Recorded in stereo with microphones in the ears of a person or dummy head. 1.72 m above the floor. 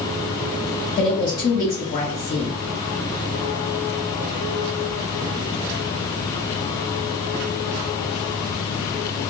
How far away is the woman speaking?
About 1.7 m.